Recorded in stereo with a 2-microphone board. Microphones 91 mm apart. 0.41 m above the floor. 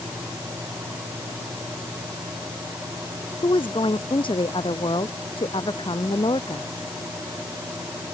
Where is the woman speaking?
70° left (ahead or behind).